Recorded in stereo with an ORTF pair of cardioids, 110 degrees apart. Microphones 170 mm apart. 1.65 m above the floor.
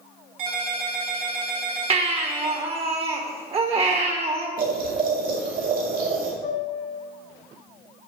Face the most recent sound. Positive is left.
turn(degrees=55)